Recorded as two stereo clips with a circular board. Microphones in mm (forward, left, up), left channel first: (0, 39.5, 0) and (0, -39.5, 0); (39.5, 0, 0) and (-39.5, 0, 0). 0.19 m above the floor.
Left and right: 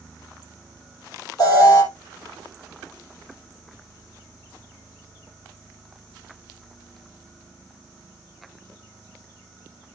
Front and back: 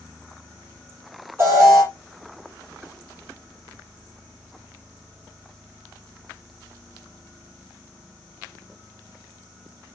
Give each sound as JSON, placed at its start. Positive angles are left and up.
{"t": 1.4, "sound": "an alarm", "azimuth_deg": 125, "distance_m": 5.0}